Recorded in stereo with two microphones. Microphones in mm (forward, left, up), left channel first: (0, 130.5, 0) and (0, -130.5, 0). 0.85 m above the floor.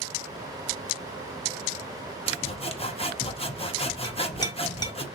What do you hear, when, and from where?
2.3 s sawing: 25° left (ahead or behind), 0.6 m
4.0 s a clink: 15° left (ahead or behind), 0.6 m